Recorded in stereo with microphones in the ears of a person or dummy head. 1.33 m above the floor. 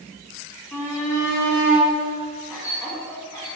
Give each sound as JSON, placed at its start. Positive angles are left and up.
{"t": 0.7, "sound": "a shout", "side_deg": 5, "distance_m": 4.0}